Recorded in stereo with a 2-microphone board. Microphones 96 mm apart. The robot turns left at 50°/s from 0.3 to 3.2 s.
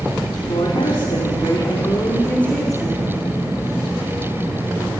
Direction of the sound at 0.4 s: 120° left.